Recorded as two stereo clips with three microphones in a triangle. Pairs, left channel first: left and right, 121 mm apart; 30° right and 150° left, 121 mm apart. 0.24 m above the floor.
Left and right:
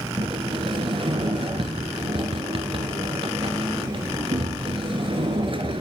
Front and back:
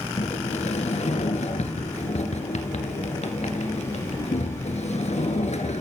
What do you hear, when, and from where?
0.2 s a sliding door: 50° right, 1.9 m